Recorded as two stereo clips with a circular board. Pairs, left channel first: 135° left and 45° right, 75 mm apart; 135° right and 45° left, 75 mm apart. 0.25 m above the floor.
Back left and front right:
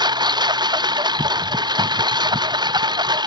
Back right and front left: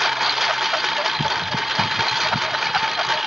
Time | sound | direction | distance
0.0 | a lawn mower | 40° right | ?